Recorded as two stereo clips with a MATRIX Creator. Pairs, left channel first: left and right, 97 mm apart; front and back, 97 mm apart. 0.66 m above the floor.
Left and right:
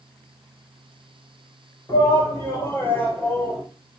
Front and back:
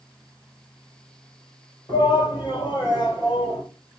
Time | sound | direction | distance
1.9 | a shout | 35° left | 3 m